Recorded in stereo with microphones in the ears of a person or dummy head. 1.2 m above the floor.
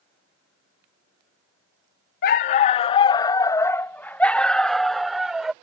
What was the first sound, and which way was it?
A dog barking, 40° left (ahead or behind).